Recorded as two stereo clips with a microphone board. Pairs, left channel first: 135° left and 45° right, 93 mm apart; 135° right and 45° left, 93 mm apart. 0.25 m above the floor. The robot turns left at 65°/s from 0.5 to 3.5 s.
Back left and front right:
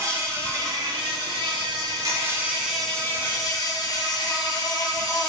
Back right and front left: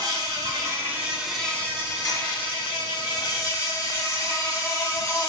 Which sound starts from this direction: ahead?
An insect, at 0.0 s.